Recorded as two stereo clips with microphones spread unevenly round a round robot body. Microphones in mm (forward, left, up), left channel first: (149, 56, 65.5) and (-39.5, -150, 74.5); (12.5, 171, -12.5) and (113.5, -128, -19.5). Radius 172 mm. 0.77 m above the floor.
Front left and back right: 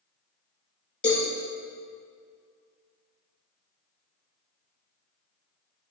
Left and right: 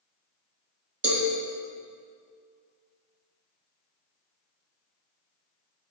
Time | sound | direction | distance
1.0 | a cowbell | 25° right | 3 m